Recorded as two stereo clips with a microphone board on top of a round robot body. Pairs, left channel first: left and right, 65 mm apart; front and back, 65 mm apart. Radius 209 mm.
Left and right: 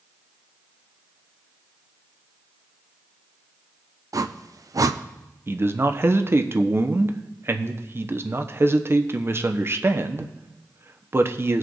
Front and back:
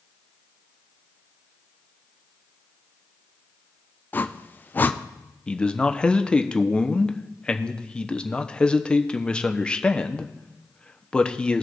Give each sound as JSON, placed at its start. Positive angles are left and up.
{"t": 4.1, "sound": "a whoosh", "azimuth_deg": -60, "distance_m": 0.7}
{"t": 5.5, "sound": "a man speaking", "azimuth_deg": -70, "distance_m": 1.0}